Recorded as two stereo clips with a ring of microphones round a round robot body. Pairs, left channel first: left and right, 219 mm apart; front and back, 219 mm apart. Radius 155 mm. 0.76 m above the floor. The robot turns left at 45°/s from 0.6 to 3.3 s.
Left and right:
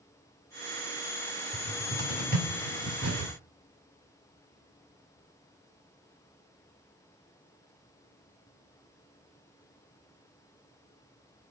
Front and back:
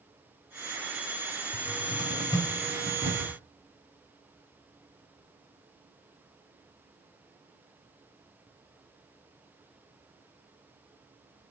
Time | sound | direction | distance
1.5 | a cupboard door | 40° right | 5 m